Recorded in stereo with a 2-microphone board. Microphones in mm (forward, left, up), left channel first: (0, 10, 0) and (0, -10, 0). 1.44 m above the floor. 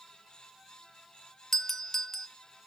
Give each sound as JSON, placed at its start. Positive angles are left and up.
{"t": 1.5, "sound": "a doorbell", "side_deg": 15, "distance_m": 0.7}